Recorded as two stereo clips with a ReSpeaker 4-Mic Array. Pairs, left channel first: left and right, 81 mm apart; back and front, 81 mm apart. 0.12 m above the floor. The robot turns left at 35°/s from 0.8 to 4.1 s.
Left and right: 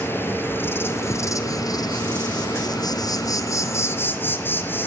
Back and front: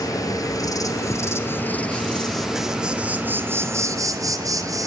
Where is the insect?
150° left, 1.4 m; by 4.9 s 35° left, 1.4 m.